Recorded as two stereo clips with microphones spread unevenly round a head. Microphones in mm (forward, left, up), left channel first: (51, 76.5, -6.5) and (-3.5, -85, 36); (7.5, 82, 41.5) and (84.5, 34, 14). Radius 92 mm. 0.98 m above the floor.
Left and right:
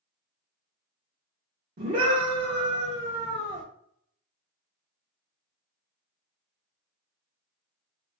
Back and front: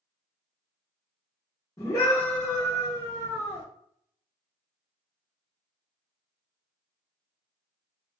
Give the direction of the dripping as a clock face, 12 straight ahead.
No dripping in this recording.